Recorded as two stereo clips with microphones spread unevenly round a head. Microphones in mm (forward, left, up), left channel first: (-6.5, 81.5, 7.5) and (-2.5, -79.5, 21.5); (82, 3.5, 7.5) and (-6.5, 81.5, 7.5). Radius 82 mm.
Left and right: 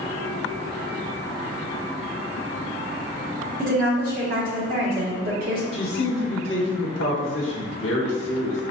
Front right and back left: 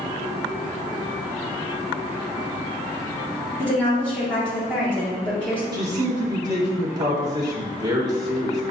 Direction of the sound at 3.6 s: 125° right.